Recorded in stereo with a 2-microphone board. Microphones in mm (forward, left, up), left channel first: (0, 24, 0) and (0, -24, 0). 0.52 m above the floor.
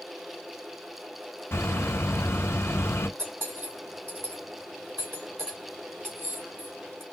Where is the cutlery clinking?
55° right (ahead or behind), 2.5 m.